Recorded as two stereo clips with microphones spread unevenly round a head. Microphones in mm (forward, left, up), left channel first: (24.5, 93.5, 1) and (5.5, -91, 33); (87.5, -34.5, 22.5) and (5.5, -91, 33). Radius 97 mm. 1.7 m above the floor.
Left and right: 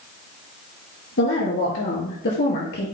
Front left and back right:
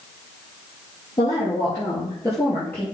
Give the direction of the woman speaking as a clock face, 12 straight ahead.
9 o'clock.